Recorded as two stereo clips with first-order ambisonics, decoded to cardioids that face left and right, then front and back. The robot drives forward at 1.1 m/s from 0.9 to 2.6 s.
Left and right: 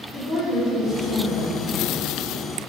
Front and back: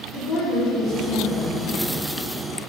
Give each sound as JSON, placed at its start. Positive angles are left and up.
{"t": 0.1, "sound": "a woman speaking", "azimuth_deg": 25, "distance_m": 2.5}